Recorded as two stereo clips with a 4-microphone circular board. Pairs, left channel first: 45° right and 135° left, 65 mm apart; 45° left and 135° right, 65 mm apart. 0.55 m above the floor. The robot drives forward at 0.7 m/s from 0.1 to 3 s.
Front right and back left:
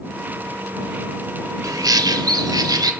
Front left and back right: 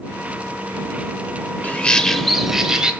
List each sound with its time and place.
1.6 s a bird: 110° left, 0.8 m; by 2.9 s 145° left, 1.4 m